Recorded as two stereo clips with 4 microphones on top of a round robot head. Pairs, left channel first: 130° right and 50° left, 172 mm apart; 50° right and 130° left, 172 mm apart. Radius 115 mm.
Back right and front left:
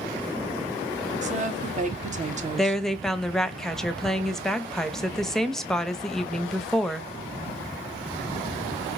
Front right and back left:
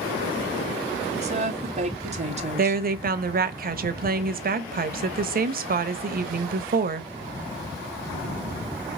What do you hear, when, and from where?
1.2 s a woman speaking: 85° left, 1.6 m
2.6 s a woman speaking: 140° left, 0.9 m